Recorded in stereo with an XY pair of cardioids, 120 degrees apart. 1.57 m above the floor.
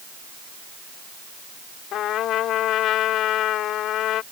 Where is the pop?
I don't hear a pop.